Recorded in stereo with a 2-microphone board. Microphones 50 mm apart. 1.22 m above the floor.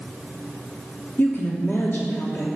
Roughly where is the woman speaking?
Left.